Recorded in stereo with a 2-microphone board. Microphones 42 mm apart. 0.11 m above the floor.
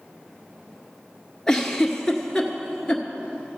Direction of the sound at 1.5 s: 15° left (ahead or behind).